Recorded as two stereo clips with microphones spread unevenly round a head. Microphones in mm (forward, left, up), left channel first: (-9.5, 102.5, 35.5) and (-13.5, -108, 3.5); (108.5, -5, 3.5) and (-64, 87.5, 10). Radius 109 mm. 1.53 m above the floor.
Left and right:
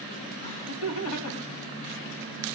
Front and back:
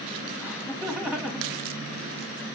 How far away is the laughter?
About 2.5 m.